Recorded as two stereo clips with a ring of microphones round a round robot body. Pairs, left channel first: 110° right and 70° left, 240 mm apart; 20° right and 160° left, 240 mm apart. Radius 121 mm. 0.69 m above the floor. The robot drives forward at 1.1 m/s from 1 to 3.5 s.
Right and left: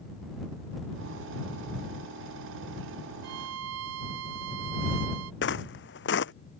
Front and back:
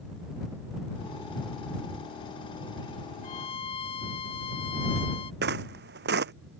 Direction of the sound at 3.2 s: 40° left.